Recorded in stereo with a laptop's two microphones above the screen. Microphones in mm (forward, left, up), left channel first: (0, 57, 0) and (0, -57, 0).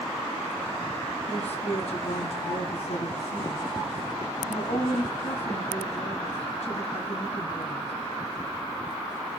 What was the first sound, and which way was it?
A woman speaking, 70° left (ahead or behind).